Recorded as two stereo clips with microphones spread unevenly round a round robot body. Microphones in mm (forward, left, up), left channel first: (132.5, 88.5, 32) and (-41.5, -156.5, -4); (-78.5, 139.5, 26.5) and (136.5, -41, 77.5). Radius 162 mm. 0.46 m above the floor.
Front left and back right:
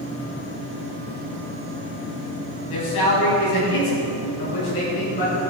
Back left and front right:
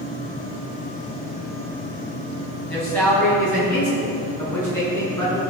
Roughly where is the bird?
I don't hear a bird.